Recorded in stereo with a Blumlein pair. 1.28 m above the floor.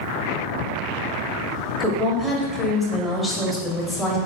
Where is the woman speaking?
5° right, 0.8 m.